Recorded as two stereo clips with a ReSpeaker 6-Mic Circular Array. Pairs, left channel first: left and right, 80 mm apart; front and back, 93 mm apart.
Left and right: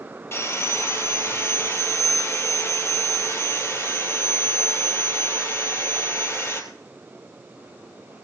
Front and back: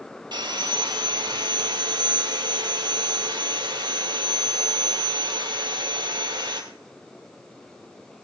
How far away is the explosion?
No explosion in this recording.